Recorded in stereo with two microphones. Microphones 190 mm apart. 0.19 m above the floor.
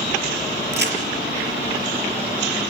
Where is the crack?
65° right (ahead or behind), 5 m.